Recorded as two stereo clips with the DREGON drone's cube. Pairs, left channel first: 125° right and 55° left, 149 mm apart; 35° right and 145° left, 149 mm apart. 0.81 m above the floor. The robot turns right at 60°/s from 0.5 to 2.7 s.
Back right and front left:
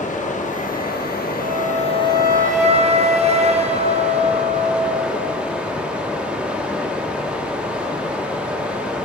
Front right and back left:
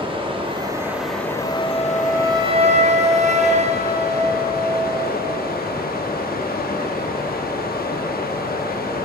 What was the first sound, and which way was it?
Running water, 160° right.